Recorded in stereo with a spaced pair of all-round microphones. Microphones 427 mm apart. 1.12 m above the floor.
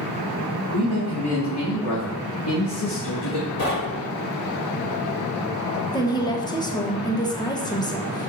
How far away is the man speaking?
About 2.5 m.